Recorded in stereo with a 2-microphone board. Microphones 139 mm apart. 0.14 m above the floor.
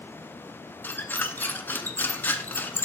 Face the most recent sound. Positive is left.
turn(degrees=15)  # may be behind; listen again after turning